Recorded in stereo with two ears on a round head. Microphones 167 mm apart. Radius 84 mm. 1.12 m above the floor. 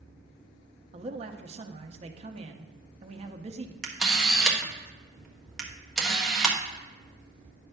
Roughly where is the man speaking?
Right.